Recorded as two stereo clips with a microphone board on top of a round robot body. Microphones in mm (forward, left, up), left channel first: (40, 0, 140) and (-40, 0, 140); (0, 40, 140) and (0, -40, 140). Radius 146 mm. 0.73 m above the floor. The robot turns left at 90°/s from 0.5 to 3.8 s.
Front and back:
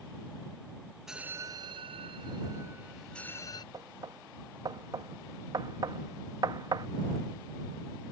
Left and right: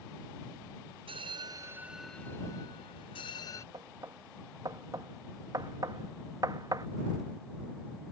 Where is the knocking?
130° right; by 6.9 s 135° right.